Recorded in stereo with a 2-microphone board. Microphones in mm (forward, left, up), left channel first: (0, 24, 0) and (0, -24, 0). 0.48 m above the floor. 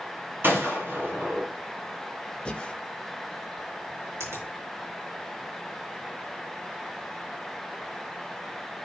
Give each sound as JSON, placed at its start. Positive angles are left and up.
{"t": 0.4, "sound": "a gunshot", "side_deg": -50, "distance_m": 5.0}
{"t": 2.5, "sound": "breathing", "side_deg": 25, "distance_m": 0.8}
{"t": 4.2, "sound": "a finger snap", "side_deg": -80, "distance_m": 6.0}